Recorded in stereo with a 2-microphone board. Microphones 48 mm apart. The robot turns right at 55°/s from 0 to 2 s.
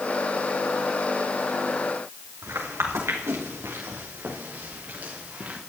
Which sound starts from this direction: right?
Footsteps, at 2.4 s.